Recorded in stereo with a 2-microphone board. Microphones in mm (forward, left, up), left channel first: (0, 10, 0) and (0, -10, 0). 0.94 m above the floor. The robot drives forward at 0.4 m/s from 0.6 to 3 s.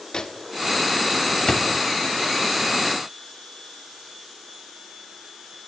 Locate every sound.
0.1 s a microwave: 40° left (ahead or behind), 2.5 m; by 1.7 s 35° left (ahead or behind), 3 m